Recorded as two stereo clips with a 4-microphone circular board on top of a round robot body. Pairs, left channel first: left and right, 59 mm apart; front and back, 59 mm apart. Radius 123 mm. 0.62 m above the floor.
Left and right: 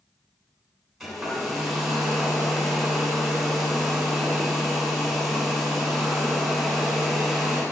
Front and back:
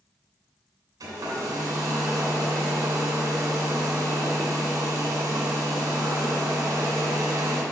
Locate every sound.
1.0 s a hair dryer: straight behind, 2.5 m